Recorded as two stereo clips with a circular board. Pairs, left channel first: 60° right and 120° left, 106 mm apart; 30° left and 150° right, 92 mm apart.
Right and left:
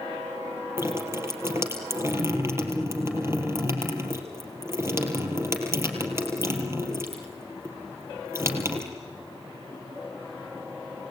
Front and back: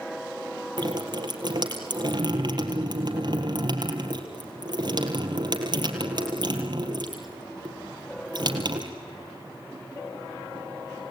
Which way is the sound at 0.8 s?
175° right.